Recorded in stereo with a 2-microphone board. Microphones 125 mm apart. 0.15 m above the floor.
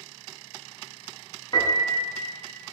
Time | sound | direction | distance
1.5 | a piano | 40° left (ahead or behind) | 0.5 m